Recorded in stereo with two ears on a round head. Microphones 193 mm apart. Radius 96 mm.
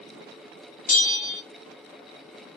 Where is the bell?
40° left (ahead or behind), 1.5 m.